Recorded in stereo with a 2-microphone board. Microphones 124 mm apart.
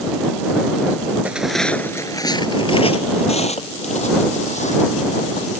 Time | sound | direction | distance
1.2 | footsteps | 10° right (ahead or behind) | ?